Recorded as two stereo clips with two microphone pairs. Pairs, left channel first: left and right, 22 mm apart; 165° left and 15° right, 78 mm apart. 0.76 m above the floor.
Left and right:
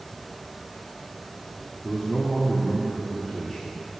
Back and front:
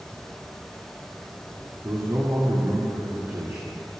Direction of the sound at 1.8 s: 25° left.